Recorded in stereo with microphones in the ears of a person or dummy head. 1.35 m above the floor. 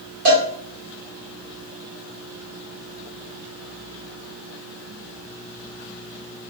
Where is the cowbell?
40° right (ahead or behind), 1.1 m.